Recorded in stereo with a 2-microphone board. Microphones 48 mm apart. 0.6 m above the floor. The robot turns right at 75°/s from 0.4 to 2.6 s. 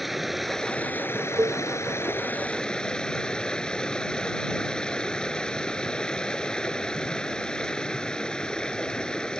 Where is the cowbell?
80° right; by 1.6 s 60° right (ahead or behind).